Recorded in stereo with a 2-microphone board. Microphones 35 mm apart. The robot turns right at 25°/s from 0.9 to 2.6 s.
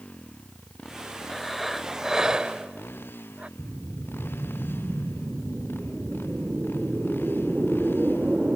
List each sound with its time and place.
0.0 s a motorcycle: 35° left; by 8.6 s 80° left
1.3 s breathing: 175° left; by 3.5 s 150° right
3.6 s a whoosh: 40° right (ahead or behind)